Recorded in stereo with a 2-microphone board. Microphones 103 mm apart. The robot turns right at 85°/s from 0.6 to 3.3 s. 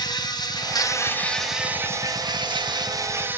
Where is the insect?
105° left, 1.0 m; by 3.4 s 25° right, 1.0 m.